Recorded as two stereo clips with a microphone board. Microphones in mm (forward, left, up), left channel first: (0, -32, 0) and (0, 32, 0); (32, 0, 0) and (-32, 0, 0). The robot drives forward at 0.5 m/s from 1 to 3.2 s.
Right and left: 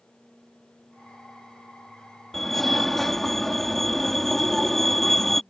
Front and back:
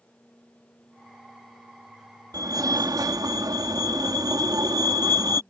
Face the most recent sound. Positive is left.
turn(degrees=-175)